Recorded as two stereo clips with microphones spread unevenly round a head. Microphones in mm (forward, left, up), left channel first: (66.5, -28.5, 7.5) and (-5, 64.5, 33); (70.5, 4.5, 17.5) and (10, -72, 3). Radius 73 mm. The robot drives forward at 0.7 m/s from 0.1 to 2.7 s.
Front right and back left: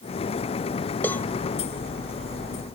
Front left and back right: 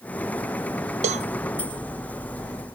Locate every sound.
1.0 s a cowbell: 135° right